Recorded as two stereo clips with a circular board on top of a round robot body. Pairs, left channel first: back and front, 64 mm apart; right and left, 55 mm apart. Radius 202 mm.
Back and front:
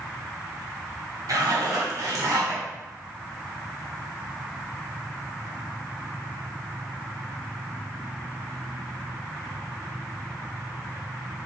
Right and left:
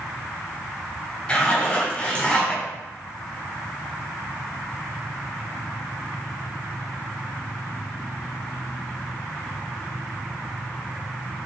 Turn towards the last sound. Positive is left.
turn(degrees=-15)